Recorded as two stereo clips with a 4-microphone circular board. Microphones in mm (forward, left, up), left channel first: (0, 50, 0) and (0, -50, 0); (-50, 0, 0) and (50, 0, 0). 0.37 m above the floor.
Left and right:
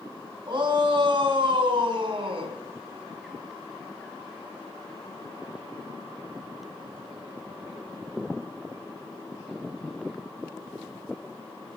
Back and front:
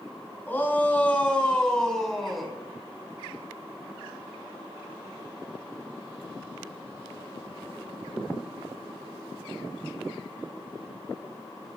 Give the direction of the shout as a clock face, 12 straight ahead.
4 o'clock.